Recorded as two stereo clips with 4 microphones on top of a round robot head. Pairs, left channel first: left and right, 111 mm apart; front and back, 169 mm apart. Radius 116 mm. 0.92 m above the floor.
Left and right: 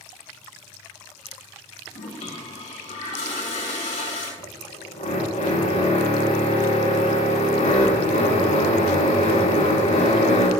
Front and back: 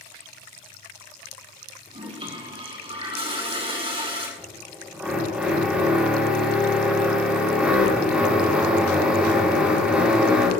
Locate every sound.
1.9 s a toilet flushing: 125° left, 6 m
4.4 s a drill: 100° left, 6 m